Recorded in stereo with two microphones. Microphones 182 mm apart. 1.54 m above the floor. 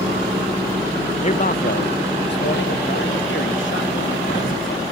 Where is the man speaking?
30° left (ahead or behind); by 4.8 s 80° left.